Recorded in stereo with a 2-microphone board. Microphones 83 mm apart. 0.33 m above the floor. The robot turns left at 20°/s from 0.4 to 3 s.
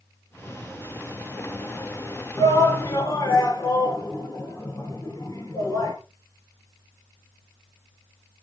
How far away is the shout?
About 4 m.